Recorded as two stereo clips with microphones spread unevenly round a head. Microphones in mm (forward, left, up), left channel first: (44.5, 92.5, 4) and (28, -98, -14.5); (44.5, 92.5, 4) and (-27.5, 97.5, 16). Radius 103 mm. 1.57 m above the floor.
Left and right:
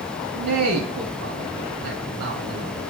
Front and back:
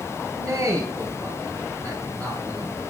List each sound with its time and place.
0.3 s a man speaking: 90° right, 3 m